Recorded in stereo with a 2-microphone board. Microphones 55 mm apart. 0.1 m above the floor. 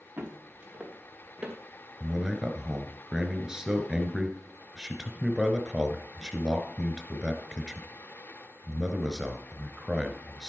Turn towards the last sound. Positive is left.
turn(degrees=-10)  # may be behind; listen again after turning